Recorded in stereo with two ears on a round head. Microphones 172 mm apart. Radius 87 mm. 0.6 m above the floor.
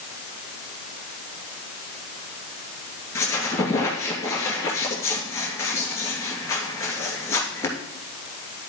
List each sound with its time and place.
3.1 s a squeak: 15° left (ahead or behind), 2 m